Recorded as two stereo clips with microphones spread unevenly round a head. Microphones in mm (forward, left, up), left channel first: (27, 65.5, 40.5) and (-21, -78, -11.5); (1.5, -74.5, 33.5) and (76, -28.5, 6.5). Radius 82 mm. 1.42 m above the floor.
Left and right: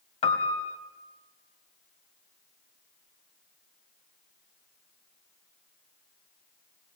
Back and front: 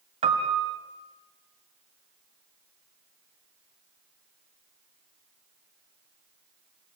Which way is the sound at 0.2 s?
45° left.